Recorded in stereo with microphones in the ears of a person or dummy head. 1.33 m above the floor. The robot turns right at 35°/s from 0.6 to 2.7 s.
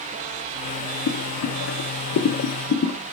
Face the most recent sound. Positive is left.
turn(degrees=40)  # may be behind; listen again after turning